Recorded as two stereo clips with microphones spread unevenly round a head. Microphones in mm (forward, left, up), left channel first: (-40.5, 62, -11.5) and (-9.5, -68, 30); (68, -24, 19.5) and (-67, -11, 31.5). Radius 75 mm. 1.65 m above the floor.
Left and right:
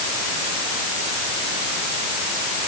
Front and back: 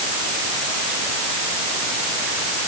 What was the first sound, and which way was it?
Only background noise.